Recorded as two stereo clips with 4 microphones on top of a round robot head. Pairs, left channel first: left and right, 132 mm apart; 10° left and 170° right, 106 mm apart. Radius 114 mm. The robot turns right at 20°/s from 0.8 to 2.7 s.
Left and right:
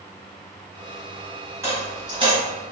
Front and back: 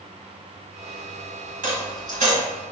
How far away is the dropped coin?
About 1.5 m.